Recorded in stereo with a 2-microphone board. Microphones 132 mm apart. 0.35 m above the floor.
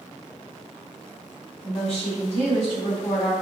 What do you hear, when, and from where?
1.6 s a woman speaking: 55° left (ahead or behind), 2.0 m